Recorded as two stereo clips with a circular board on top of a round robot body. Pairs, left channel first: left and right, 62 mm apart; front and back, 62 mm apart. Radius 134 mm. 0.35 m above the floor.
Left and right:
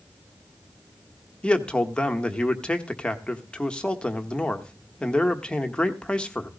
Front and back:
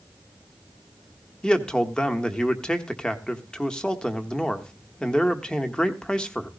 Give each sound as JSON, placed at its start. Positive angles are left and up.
{"t": 1.4, "sound": "a man speaking", "azimuth_deg": 50, "distance_m": 1.3}